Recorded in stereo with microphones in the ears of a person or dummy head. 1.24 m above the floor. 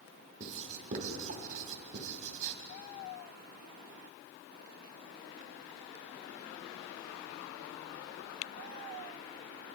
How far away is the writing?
About 2.5 m.